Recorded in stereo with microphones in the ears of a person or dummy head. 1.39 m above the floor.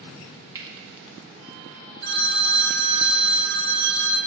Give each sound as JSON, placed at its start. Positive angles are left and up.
{"t": 0.6, "sound": "cutlery clinking", "side_deg": -20, "distance_m": 1.0}
{"t": 2.0, "sound": "a phone ringing", "side_deg": -50, "distance_m": 1.0}